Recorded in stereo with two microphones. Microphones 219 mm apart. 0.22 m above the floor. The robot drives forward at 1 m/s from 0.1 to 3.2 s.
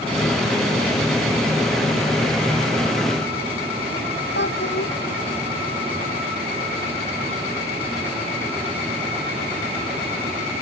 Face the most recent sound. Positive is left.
turn(degrees=55)  # may be behind; listen again after turning